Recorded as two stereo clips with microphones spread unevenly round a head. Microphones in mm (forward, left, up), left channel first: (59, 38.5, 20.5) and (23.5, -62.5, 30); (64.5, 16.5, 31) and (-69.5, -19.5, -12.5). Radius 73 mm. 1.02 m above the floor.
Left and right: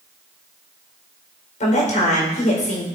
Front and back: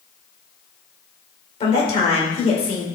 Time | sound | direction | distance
1.6 | a woman speaking | 65° left | 4.5 m